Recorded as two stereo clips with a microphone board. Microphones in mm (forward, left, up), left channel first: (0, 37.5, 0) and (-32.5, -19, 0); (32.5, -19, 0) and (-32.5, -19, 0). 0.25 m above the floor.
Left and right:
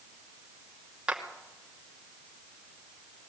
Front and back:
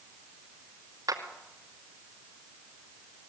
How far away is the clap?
About 2.5 m.